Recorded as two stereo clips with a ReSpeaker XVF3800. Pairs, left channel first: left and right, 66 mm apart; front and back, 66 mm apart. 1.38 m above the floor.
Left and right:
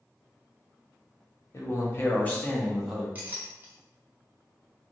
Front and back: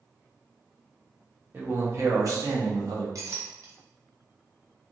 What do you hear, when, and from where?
1.5 s a man speaking: 125° left, 0.9 m; by 3.0 s 175° right, 1.0 m
3.1 s a clink: 150° right, 0.8 m